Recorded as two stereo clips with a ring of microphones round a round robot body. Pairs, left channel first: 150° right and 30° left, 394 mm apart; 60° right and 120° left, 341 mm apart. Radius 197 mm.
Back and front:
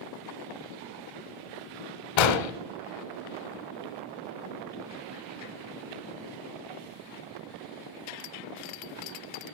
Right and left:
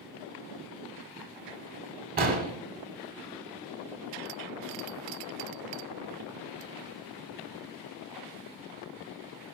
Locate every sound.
2.2 s an explosion: 175° right, 0.9 m